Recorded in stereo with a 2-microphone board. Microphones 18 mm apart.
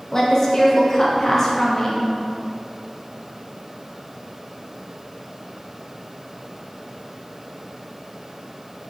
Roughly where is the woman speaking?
Left.